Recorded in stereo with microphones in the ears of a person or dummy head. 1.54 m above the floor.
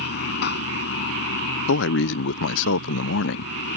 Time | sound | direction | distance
0.0 | running water | 50° left (ahead or behind) | ?
1.7 | a man speaking | 65° left (ahead or behind) | ?